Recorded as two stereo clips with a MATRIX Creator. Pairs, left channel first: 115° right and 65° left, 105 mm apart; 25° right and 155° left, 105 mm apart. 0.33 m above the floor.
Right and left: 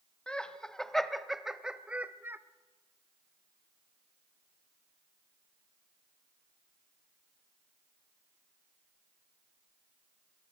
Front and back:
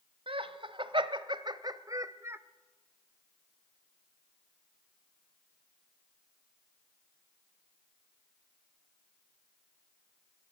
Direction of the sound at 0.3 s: 170° left.